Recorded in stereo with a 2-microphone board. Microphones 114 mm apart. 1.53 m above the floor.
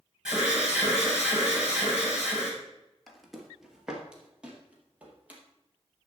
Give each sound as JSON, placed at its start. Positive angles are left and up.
{"t": 0.2, "sound": "an alarm", "side_deg": -10, "distance_m": 4.5}
{"t": 3.1, "sound": "footsteps", "side_deg": 0, "distance_m": 2.0}